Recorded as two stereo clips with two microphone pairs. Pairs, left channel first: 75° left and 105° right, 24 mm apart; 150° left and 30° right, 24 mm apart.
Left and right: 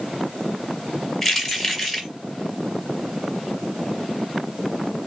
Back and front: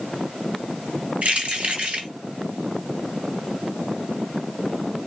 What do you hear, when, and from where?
1.2 s keys jangling: 5° right, 1.9 m